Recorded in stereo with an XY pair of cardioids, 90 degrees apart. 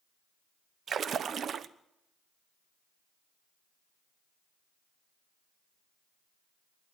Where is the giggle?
I don't hear a giggle.